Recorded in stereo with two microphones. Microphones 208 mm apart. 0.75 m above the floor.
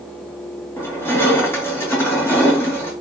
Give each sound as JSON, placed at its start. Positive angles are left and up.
{"t": 0.8, "sound": "crushing", "side_deg": 10, "distance_m": 3.5}